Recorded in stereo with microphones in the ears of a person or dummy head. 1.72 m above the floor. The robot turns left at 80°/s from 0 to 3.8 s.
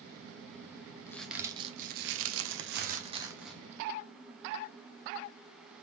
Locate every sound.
1.1 s a crack: 20° left, 0.8 m; by 3.6 s 175° left, 0.8 m